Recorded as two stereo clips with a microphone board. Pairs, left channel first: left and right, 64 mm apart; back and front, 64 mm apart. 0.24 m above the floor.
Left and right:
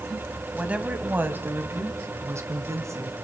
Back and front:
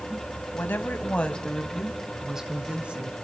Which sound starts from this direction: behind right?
A woman speaking, at 0.5 s.